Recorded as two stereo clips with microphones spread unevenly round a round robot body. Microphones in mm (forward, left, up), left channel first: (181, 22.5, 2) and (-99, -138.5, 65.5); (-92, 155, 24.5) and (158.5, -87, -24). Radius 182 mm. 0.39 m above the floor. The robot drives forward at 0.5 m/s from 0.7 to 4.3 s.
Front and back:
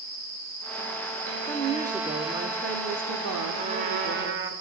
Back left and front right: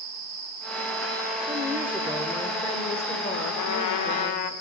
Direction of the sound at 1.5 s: 30° right.